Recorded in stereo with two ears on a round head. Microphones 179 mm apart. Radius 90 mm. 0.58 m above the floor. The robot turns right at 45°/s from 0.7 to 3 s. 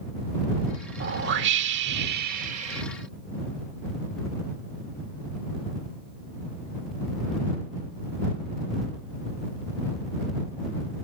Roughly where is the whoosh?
Right.